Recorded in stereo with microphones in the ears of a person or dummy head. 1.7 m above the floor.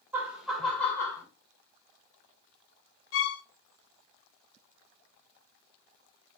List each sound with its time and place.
0.1 s laughter: 15° right (ahead or behind), 1.3 m; by 1.2 s 15° left (ahead or behind), 1.5 m
3.1 s a violin: 65° left (ahead or behind), 0.7 m